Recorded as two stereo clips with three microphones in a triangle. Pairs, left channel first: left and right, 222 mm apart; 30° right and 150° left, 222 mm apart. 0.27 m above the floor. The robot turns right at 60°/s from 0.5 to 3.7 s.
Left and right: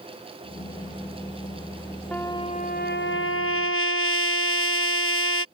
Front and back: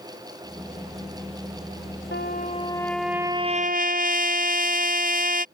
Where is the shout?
I don't hear a shout.